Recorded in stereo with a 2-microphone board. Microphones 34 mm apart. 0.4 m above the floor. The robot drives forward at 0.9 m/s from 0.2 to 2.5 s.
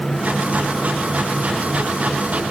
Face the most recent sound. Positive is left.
No sound to turn to.